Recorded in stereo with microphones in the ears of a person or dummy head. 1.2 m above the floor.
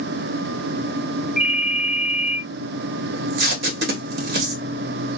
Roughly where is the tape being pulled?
Right.